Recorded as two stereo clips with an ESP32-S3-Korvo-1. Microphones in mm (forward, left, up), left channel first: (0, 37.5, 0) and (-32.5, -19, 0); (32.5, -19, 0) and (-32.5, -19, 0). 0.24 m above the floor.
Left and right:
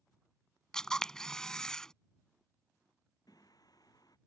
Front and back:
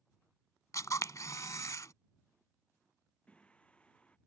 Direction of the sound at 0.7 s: 20° right.